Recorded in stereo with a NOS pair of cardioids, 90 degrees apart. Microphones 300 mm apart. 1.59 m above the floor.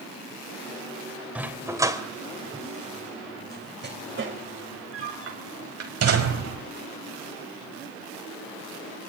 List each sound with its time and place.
1.4 s a dog barking: 5° right, 3.5 m; by 6.6 s 60° right, 4.5 m